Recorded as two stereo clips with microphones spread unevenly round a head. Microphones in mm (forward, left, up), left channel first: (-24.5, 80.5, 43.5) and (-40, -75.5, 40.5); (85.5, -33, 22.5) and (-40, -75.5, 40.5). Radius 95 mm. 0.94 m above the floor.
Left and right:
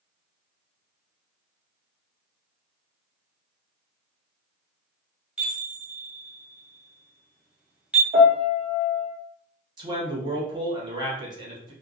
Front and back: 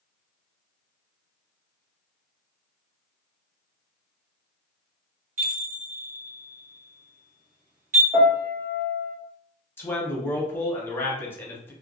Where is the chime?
175° right, 1.3 m.